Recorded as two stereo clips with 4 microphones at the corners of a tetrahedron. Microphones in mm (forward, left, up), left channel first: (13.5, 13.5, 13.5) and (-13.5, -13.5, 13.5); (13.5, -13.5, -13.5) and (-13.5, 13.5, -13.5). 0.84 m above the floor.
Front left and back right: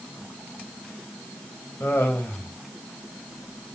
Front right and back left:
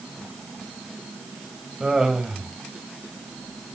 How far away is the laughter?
About 3.5 m.